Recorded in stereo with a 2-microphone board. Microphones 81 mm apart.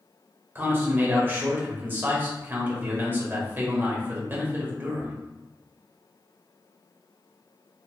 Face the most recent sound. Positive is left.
turn(degrees=-25)  # may be behind; listen again after turning